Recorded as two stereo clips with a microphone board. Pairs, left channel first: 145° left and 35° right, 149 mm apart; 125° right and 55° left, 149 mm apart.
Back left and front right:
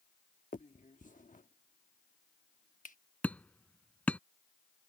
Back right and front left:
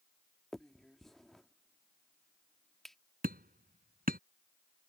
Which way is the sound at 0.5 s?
150° left.